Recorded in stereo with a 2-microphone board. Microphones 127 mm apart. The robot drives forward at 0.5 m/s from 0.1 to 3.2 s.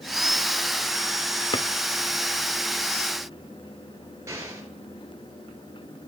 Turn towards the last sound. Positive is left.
turn(degrees=-25)  # may be behind; listen again after turning